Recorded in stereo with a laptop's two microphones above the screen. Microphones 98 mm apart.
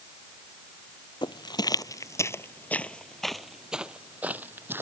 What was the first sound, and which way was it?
Footsteps, 50° left (ahead or behind).